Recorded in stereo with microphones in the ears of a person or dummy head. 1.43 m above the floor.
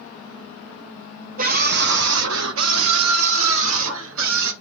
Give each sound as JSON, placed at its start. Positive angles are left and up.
{"t": 1.4, "sound": "a scream", "side_deg": -50, "distance_m": 0.8}